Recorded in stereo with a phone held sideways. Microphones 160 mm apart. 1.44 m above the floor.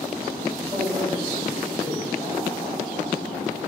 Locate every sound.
0.6 s a man speaking: 35° right (ahead or behind), 1.8 m